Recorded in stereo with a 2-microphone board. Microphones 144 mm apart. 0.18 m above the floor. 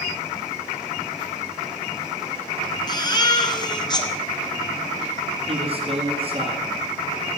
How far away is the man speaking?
About 3.5 m.